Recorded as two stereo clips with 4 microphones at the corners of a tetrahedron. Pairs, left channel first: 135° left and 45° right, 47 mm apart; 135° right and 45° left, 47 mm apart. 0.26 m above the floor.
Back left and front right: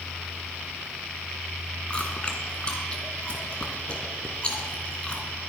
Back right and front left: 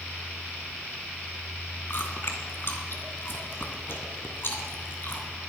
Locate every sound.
1.9 s chewing: 165° right, 2.5 m